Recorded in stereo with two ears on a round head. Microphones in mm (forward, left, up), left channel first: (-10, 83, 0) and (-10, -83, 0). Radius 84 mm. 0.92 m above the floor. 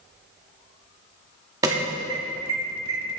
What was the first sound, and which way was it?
An alarm, 20° right (ahead or behind).